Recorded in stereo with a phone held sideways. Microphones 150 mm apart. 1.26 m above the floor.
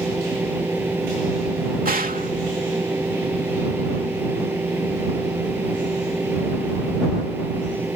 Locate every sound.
0.0 s a fan: 15° right (ahead or behind)
1.9 s a gunshot: 70° right (ahead or behind)